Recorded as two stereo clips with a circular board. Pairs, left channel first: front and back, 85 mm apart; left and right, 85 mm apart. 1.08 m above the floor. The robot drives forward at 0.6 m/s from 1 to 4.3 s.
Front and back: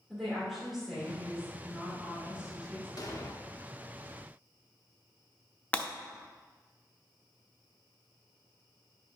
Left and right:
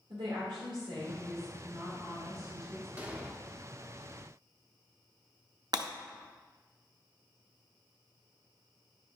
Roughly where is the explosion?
Ahead.